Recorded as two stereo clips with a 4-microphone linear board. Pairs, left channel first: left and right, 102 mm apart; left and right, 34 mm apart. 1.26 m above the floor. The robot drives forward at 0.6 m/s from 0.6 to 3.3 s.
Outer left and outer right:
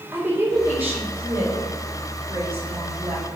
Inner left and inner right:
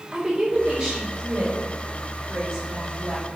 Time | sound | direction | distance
0.1 | a woman speaking | 20° right (ahead or behind) | 4 m